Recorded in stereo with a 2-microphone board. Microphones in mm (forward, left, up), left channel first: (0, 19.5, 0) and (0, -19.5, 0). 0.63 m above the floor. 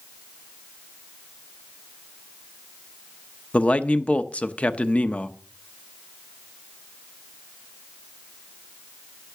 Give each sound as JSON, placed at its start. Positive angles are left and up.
{"t": 3.5, "sound": "a man speaking", "side_deg": 30, "distance_m": 0.8}